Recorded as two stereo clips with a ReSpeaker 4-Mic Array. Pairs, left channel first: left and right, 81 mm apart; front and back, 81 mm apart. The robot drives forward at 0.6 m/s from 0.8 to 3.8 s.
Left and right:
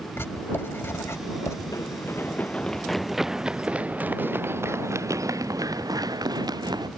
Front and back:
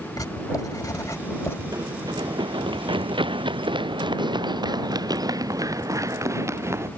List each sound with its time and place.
0.2 s writing: 35° left; by 1.6 s 50° left
1.7 s running footsteps: 135° left; by 6.9 s 120° right